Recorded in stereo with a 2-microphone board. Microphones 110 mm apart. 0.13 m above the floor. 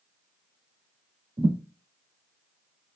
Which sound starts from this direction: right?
A thud, at 1.4 s.